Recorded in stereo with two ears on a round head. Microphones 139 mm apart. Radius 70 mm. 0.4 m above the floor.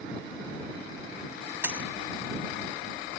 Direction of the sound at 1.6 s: 10° right (ahead or behind).